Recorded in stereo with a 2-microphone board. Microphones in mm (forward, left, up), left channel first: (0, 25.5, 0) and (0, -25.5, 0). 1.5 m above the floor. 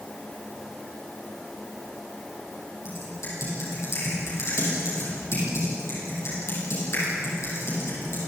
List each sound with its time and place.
2.9 s typing on a keyboard: 65° left (ahead or behind), 10 m